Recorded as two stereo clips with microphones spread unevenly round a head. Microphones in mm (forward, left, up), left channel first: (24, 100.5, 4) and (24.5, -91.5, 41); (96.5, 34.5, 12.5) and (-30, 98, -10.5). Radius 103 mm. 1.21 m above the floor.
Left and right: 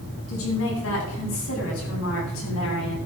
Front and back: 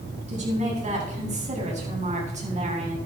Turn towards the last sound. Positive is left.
turn(degrees=115)